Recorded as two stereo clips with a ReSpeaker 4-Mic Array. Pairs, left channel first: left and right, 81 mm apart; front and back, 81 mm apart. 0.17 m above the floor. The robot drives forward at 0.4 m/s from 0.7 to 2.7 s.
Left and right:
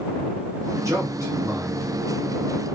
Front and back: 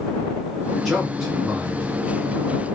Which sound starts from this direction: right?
A man speaking, at 0.8 s.